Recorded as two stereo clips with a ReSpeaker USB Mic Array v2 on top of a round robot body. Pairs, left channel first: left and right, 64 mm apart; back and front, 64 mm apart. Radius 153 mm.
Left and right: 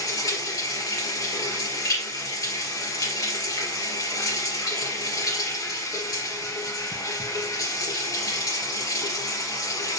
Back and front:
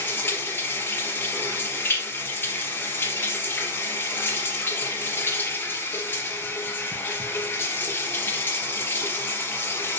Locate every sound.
0.0 s running water: 120° left, 3 m